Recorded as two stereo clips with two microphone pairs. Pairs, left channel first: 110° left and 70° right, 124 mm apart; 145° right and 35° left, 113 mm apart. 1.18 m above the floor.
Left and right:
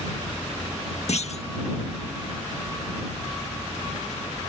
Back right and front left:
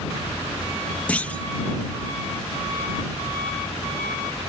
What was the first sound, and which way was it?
A clunk, 135° left.